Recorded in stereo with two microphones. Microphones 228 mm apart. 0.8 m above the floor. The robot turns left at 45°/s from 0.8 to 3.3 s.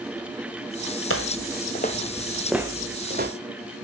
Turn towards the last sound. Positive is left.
turn(degrees=-45)  # may be behind; listen again after turning